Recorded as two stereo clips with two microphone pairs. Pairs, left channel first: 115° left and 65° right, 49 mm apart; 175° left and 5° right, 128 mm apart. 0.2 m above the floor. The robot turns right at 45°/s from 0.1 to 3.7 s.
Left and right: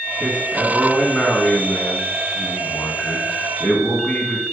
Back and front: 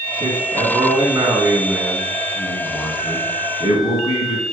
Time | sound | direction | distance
0.2 | a man speaking | 5° right | 1.9 m